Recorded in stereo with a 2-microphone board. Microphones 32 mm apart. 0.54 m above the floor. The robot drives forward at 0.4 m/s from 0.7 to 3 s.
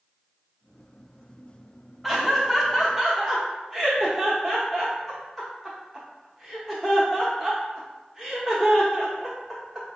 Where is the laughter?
5° right (ahead or behind), 0.7 m; by 9.9 s centre (ahead or behind), 0.9 m.